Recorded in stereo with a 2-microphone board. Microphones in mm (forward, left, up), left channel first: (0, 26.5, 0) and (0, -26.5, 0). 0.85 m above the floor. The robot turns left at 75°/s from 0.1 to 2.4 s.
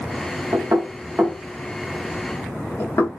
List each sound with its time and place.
0.5 s knocking: 80° right, 1.0 m; by 3.1 s 60° left (ahead or behind), 1.0 m